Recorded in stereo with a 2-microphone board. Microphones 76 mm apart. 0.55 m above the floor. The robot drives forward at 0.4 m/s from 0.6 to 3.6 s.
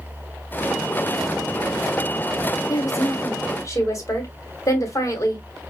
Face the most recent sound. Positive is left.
turn(degrees=40)  # may be behind; listen again after turning